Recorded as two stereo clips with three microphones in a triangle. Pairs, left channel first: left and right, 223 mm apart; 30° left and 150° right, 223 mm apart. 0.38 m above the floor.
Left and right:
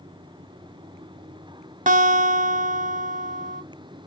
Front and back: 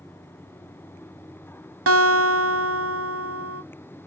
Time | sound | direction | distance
1.9 | a guitar | 150° right | 0.6 m